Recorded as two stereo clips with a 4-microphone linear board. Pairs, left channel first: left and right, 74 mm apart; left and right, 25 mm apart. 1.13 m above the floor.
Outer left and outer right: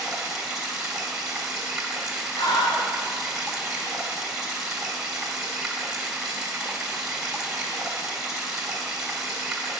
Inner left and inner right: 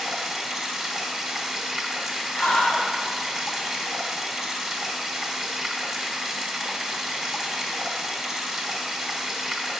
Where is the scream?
80° left, 3 m.